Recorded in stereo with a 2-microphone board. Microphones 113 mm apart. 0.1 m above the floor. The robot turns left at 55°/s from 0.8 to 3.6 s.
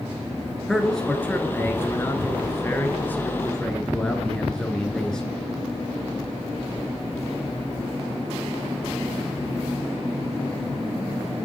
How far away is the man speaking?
About 1.1 m.